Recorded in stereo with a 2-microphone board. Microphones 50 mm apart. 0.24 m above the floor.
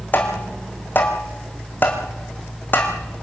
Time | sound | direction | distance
0.1 | tapping | 40° left (ahead or behind) | 3.5 m